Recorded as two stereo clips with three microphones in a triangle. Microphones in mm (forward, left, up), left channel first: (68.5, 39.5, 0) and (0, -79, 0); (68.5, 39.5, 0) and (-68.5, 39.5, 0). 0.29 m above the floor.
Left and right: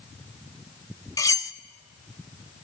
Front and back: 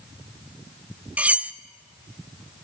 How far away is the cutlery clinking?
About 0.5 m.